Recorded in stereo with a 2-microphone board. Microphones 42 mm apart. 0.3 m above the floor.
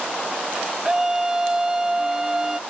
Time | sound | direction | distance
0.8 | a scream | 15° right (ahead or behind) | ?